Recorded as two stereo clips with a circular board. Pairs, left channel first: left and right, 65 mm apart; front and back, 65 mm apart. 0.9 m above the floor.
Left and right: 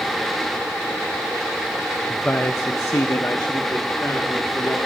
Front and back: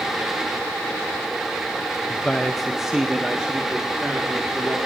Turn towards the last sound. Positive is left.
turn(degrees=120)